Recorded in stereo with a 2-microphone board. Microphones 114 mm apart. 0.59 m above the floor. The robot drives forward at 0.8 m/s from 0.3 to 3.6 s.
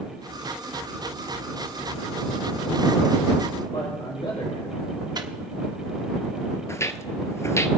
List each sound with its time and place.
3.7 s a man speaking: 50° left (ahead or behind), 3.5 m
5.2 s a microwave: 35° right (ahead or behind), 1.0 m
6.7 s footsteps: 25° left (ahead or behind), 0.7 m